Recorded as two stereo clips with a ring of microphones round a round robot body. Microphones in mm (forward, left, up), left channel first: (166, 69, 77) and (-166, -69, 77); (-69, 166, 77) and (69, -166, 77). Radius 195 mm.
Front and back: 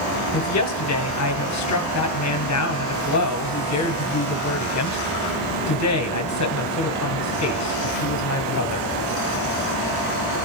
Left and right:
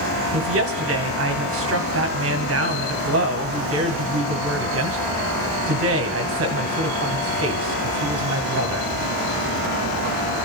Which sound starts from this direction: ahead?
A woman speaking, at 0.3 s.